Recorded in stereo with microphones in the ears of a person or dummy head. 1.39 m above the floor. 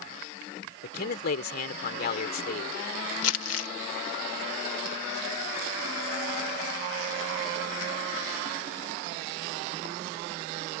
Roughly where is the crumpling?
Left.